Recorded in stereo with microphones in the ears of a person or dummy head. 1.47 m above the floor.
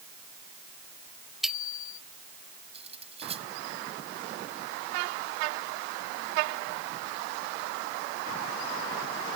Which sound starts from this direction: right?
Cutlery clinking, at 2.7 s.